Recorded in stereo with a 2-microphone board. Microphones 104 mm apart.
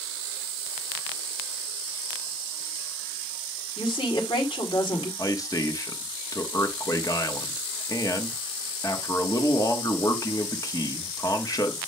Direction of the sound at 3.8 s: 60° left (ahead or behind).